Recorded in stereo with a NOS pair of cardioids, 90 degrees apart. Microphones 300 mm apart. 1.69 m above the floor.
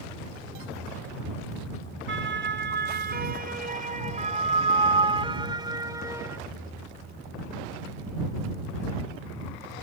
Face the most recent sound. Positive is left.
turn(degrees=-10)